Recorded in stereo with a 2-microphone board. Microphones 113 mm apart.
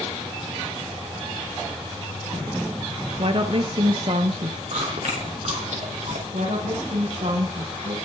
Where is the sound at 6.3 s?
75° right (ahead or behind), 7.5 m.